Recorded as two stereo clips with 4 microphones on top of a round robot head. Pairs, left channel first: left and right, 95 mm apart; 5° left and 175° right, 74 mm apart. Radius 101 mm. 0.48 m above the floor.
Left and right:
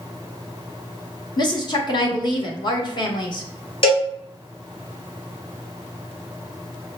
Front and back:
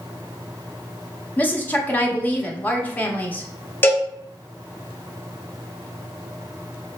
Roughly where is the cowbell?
Ahead left.